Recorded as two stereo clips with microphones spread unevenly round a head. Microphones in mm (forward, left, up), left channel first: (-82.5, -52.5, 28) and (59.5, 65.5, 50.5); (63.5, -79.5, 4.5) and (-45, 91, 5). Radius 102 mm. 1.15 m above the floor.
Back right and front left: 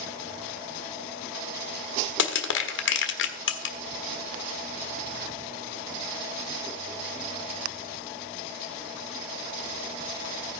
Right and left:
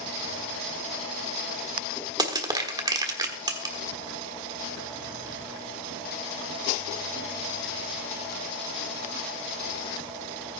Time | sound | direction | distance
2.2 | crushing | 165° right | 1.2 m